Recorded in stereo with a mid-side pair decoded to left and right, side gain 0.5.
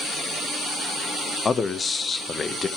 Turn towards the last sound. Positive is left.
turn(degrees=35)